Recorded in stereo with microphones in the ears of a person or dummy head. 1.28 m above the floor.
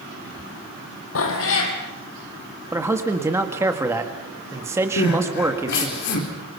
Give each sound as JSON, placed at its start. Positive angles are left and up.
{"t": 1.1, "sound": "a cat meowing", "side_deg": 70, "distance_m": 3.5}
{"t": 2.7, "sound": "a man speaking", "side_deg": -10, "distance_m": 1.8}
{"t": 5.0, "sound": "crying", "side_deg": 60, "distance_m": 4.0}